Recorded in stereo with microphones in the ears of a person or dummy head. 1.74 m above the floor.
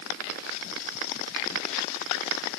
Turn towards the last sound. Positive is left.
No sound to turn to.